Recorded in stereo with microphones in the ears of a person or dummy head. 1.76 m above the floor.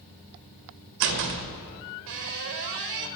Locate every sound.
1.0 s a door slam: 55° right (ahead or behind), 1.3 m